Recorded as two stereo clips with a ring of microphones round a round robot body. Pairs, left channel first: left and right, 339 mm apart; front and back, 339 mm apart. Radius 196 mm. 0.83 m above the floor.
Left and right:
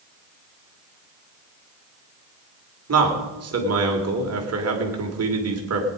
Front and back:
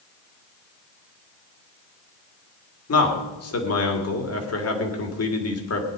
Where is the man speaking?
45° right, 3 m.